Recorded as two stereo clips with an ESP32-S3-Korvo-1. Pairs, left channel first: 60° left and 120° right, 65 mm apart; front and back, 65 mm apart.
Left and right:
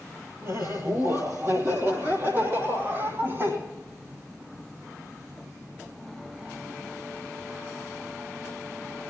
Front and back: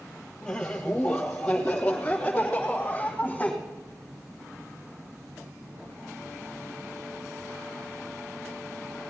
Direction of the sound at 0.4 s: 75° right.